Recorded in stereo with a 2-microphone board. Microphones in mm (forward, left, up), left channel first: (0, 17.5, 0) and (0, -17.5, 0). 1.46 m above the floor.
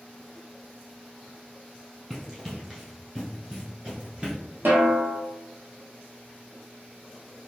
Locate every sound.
2.1 s running footsteps: 5° right (ahead or behind), 1.6 m; by 4.4 s 20° right (ahead or behind), 1.6 m
4.7 s a snare drum: 75° right (ahead or behind), 0.7 m